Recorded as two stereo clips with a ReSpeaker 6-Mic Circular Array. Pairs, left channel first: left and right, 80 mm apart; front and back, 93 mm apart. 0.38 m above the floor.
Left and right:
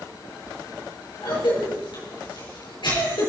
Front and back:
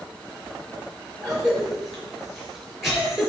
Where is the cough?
90° left, 5.5 m.